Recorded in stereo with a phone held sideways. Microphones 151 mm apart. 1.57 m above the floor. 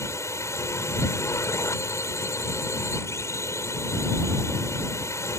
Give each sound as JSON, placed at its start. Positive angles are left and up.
{"t": 0.0, "sound": "a drone", "side_deg": 20}